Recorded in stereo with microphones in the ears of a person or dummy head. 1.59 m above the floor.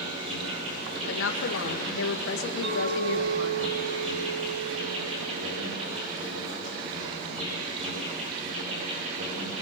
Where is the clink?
65° right (ahead or behind), 4 m.